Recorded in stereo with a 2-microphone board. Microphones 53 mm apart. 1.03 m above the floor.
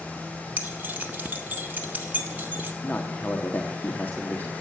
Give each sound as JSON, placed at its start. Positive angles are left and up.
{"t": 0.6, "sound": "keys jangling", "side_deg": -35, "distance_m": 1.8}
{"t": 2.8, "sound": "a man speaking", "side_deg": 35, "distance_m": 1.6}